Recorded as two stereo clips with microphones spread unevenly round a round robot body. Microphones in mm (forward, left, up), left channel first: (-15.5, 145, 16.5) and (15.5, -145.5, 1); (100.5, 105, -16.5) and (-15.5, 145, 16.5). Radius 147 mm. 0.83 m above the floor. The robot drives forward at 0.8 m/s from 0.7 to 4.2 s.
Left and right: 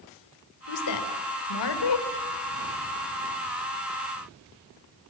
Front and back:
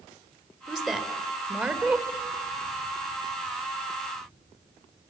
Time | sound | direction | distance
0.7 | a woman speaking | 70° left | 3.5 m